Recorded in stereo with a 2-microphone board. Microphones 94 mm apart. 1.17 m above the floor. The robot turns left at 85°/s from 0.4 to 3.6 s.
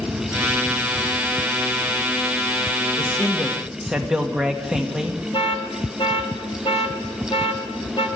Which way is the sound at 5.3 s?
75° left (ahead or behind).